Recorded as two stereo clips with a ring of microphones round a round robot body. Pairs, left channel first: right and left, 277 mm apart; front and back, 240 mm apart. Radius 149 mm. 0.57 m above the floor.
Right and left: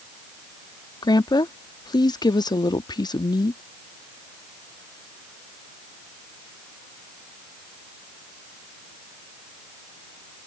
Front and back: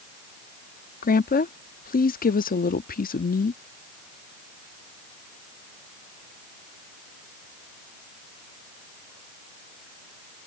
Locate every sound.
1.0 s a woman speaking: 20° right